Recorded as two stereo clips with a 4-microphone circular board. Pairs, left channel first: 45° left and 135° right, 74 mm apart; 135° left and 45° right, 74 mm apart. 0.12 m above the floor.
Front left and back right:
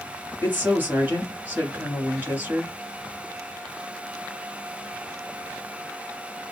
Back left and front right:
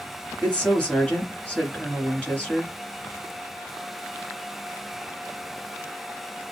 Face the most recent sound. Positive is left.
turn(degrees=-170)